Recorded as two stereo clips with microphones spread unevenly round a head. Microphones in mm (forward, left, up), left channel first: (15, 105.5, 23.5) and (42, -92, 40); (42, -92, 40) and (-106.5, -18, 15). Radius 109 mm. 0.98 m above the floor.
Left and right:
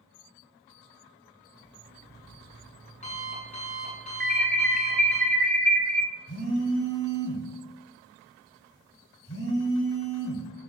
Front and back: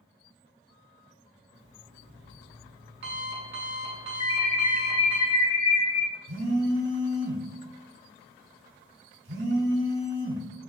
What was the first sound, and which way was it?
An alarm clock, 160° left.